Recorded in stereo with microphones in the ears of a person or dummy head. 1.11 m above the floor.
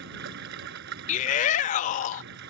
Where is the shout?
50° left (ahead or behind).